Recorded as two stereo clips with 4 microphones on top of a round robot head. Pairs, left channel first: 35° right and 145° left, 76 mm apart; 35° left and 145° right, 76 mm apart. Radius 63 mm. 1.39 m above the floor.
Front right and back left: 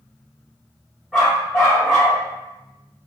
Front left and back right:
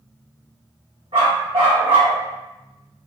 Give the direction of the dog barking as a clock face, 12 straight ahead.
4 o'clock.